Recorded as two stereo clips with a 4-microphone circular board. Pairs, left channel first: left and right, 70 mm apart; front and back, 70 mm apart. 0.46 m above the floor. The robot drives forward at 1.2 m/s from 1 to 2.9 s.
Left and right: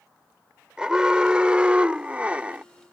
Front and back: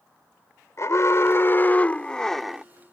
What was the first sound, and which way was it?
An alarm, 15° right.